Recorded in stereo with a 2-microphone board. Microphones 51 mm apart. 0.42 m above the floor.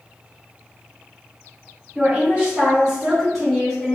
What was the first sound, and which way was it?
A woman speaking, 30° right (ahead or behind).